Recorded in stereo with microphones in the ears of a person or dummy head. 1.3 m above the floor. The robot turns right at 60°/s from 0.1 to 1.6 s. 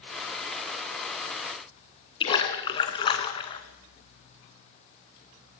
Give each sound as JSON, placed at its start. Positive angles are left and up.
{"t": 2.2, "sound": "a splash", "side_deg": 30, "distance_m": 2.5}